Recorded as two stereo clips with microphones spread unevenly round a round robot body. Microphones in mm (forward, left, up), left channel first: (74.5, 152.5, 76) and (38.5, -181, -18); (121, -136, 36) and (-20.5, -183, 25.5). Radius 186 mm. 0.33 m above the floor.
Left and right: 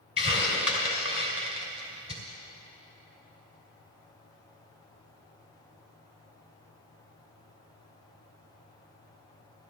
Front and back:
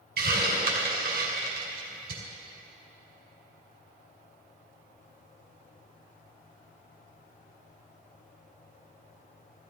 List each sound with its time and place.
0.2 s a hiss: straight behind, 2.5 m